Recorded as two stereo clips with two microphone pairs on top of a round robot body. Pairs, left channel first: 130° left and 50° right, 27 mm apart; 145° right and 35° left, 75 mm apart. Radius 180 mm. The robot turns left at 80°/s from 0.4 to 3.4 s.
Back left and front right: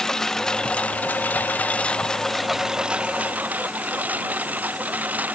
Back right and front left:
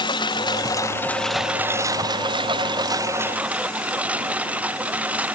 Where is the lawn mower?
160° right; by 5.3 s 35° right.